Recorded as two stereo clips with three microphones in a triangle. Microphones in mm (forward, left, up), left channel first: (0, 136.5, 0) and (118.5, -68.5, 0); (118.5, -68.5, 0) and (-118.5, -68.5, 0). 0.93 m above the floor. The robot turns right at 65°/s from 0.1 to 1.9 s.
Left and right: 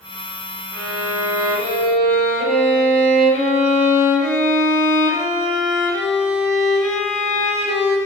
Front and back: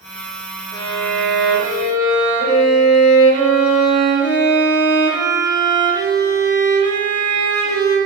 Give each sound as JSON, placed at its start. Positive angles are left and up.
{"t": 0.7, "sound": "a violin", "azimuth_deg": -80, "distance_m": 1.4}